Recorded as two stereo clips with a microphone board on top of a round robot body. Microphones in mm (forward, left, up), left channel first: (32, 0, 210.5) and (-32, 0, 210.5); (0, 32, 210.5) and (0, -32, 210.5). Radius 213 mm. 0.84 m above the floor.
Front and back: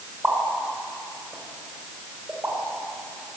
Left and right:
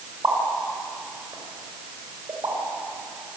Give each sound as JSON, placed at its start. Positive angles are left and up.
{"t": 0.2, "sound": "a pop", "azimuth_deg": -110, "distance_m": 5.0}